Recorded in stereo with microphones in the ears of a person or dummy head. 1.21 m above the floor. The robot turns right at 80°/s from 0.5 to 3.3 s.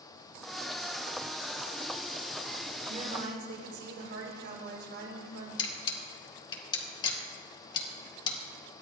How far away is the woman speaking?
About 4.5 m.